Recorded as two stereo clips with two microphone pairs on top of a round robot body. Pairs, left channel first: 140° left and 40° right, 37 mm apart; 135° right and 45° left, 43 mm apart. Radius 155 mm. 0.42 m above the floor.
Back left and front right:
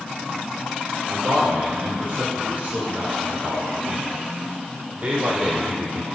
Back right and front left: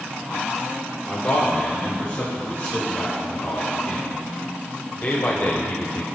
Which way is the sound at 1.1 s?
80° right.